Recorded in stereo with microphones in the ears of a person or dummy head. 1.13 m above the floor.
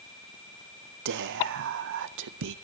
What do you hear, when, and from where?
1.1 s whispering: 60° right (ahead or behind), 0.6 m